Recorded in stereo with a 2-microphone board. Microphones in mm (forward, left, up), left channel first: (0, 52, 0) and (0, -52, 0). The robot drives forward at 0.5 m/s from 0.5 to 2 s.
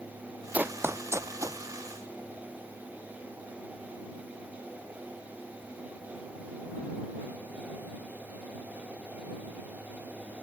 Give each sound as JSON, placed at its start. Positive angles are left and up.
{"t": 0.5, "sound": "running footsteps", "side_deg": -15}